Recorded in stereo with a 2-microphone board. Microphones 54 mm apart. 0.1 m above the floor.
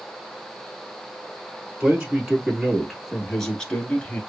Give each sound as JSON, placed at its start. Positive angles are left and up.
{"t": 1.8, "sound": "a man speaking", "side_deg": -20, "distance_m": 1.7}